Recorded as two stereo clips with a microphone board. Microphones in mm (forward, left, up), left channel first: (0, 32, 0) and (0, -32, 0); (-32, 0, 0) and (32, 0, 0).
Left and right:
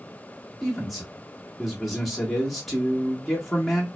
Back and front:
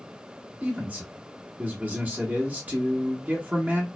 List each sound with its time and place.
0.6 s a man speaking: straight ahead, 1.3 m